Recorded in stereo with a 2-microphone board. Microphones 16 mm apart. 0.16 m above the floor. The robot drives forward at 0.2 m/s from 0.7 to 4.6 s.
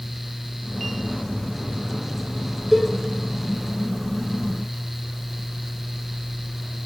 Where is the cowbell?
10° right (ahead or behind), 2 m.